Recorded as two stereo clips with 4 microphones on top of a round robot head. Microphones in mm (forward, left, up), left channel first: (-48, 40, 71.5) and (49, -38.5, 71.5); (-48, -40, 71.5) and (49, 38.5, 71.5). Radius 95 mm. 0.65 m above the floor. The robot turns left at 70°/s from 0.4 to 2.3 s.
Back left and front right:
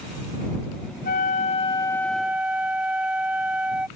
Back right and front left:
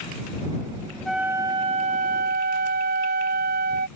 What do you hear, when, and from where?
1.1 s a flute: 130° left; by 3.9 s 45° left